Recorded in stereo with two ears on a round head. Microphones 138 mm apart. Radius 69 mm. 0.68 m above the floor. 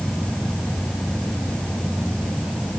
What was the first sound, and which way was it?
An insect, 10° left (ahead or behind).